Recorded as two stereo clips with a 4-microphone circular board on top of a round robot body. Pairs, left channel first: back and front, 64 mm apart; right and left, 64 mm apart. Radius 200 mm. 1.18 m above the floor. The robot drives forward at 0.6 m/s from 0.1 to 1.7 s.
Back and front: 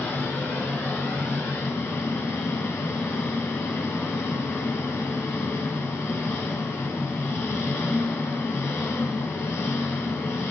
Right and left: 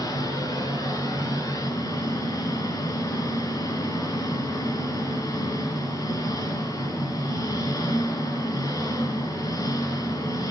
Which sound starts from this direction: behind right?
An engine running, at 0.0 s.